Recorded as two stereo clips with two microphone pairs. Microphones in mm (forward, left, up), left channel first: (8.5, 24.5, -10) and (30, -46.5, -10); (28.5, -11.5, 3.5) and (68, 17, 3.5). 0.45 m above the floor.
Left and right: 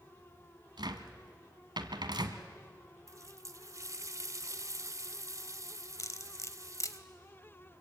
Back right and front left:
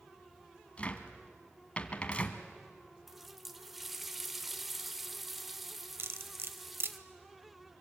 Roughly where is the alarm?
No alarm in this recording.